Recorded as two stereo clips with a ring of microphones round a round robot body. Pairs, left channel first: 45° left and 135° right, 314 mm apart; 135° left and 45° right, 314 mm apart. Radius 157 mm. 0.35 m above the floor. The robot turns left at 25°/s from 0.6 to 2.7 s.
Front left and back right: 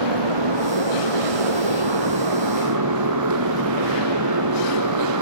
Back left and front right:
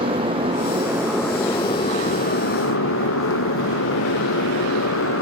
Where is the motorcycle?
120° right; by 5.2 s 170° right.